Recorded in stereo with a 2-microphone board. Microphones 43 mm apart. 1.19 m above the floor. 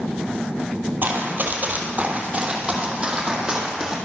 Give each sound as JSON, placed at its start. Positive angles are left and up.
{"t": 1.0, "sound": "running footsteps", "side_deg": -50, "distance_m": 2.0}